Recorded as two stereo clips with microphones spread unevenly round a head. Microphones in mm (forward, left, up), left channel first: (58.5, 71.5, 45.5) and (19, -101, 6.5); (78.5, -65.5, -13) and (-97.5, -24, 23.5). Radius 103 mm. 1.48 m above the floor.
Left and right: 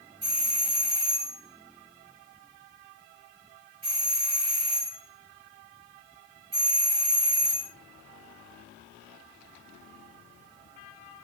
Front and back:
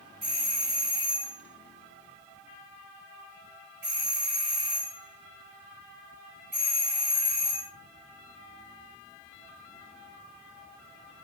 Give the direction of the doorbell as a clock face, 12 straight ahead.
5 o'clock.